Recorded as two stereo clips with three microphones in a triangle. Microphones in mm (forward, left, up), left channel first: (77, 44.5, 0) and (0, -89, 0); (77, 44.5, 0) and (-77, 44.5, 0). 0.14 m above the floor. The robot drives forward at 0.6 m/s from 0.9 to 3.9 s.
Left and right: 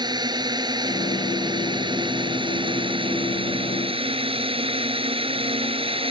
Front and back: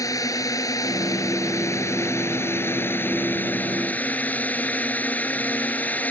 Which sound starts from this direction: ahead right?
A drone, at 0.0 s.